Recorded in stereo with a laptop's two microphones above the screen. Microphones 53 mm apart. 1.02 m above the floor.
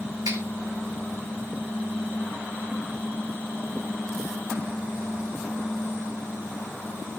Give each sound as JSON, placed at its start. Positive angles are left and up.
{"t": 0.2, "sound": "a finger snap", "side_deg": -85, "distance_m": 4.0}